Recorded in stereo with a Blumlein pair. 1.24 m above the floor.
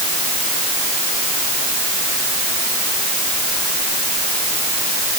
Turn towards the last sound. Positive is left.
No sound to turn to.